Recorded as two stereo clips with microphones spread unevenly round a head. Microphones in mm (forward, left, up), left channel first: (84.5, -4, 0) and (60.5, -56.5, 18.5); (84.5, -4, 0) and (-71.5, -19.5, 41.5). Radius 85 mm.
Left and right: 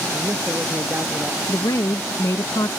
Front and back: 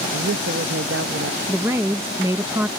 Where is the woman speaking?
105° left.